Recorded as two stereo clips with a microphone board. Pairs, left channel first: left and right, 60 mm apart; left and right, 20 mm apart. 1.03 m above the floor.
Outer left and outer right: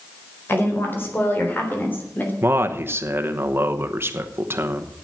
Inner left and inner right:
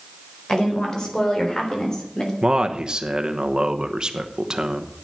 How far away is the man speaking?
About 1.0 m.